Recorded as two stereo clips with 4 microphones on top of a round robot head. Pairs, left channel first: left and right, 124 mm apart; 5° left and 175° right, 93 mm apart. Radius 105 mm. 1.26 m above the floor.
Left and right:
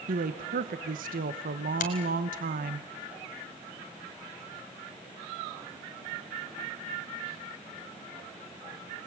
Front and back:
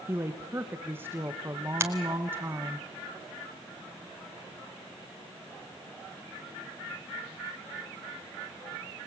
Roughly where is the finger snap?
Behind left.